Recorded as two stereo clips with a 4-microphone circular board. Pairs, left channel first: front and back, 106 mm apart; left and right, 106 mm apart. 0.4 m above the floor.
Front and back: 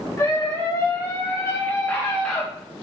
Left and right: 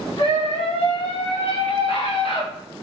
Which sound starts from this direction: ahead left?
A scream, at 0.2 s.